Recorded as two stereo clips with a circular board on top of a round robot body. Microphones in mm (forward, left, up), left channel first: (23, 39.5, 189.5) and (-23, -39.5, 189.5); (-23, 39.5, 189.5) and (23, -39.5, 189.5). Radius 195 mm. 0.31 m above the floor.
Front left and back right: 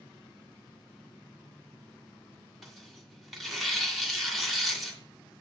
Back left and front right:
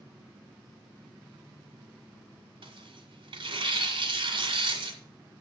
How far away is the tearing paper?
About 2 m.